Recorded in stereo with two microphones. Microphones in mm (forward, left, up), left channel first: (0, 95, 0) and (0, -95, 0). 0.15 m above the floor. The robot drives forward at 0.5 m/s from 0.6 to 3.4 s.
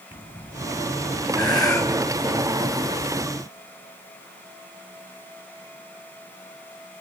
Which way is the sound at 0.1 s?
25° left (ahead or behind).